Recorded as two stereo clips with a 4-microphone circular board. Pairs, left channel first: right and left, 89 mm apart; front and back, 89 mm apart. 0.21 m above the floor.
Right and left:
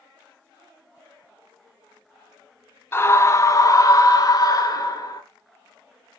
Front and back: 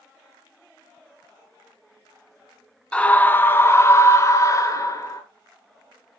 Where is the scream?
65° right, 1.2 m; by 5.2 s 50° right, 3 m.